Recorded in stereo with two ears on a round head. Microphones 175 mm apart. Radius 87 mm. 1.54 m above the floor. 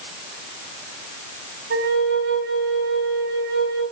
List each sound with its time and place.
1.7 s a flute: 60° right (ahead or behind), 3 m